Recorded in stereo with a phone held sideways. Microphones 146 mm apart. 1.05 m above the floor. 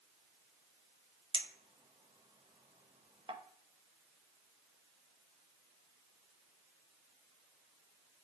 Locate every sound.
1.3 s a clink: 35° right (ahead or behind), 0.5 m